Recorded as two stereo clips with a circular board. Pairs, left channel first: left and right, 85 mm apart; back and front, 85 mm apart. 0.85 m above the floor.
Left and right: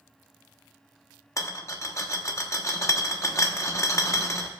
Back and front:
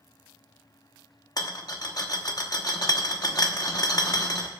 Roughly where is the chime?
I don't hear a chime.